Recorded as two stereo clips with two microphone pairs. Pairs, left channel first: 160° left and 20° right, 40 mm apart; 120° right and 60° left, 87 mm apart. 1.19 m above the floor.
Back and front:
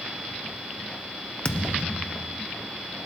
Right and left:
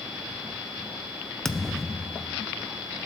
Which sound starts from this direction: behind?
A thud, at 1.4 s.